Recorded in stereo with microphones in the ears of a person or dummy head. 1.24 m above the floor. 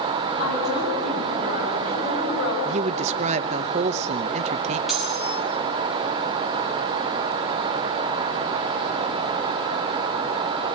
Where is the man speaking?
40° right (ahead or behind), 0.7 m.